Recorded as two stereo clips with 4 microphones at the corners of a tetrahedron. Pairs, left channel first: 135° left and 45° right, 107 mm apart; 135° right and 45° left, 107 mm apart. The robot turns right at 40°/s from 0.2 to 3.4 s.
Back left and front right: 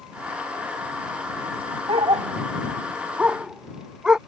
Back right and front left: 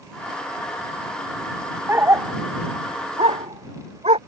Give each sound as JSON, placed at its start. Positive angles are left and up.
{"t": 1.9, "sound": "a dog barking", "azimuth_deg": -25}